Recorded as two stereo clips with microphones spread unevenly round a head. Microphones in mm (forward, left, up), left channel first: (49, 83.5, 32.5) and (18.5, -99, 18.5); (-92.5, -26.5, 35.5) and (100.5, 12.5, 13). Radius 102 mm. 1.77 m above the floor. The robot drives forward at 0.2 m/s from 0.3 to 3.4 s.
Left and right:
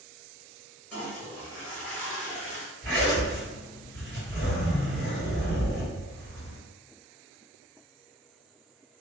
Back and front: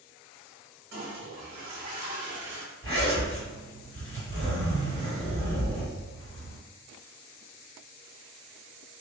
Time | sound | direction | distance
0.9 | a toilet flushing | 5° left | 1.2 m
2.8 | a zipper | 115° right | 1.8 m